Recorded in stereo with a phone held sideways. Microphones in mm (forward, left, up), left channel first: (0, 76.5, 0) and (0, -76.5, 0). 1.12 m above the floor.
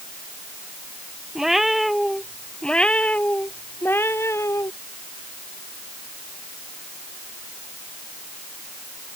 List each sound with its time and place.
1.4 s a cat meowing: 5° right (ahead or behind); by 4.7 s 20° left (ahead or behind)